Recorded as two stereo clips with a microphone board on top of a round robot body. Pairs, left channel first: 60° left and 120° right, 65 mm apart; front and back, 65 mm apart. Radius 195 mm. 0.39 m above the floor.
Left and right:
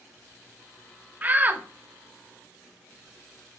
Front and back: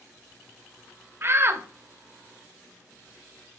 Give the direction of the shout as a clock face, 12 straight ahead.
6 o'clock.